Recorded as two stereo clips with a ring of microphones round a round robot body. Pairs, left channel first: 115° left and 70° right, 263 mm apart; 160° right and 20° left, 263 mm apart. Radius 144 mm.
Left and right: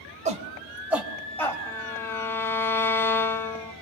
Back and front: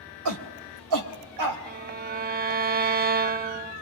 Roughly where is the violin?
Ahead left.